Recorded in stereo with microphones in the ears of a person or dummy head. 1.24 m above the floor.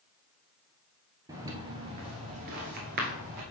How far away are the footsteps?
About 1.5 m.